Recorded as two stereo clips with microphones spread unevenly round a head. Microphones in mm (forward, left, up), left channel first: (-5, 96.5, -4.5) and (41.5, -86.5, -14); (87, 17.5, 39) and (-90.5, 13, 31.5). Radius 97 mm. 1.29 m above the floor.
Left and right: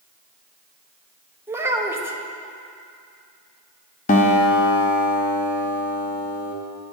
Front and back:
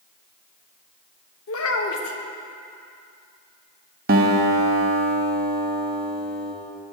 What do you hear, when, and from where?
1.5 s a child speaking: straight ahead, 1.1 m
4.1 s a guitar: 145° left, 0.9 m